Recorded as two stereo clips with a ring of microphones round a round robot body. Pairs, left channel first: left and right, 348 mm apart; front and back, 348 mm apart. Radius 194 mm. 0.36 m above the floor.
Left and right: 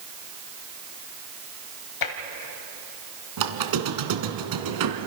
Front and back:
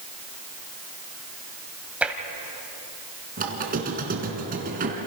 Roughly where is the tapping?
Left.